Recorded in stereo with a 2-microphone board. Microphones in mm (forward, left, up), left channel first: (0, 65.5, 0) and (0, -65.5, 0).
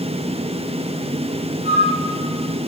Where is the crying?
I don't hear crying.